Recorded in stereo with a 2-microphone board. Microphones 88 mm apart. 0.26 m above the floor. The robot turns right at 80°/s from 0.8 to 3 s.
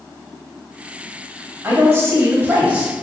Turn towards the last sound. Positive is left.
turn(degrees=-5)  # may be behind; listen again after turning